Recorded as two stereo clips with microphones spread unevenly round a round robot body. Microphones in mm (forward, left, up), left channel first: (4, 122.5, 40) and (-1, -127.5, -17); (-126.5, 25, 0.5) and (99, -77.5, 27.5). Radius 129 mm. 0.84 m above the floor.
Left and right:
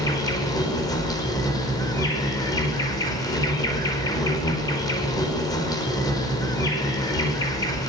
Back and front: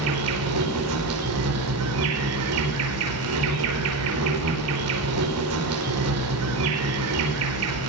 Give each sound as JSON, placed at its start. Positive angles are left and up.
{"t": 0.0, "sound": "an insect", "azimuth_deg": 10, "distance_m": 5.0}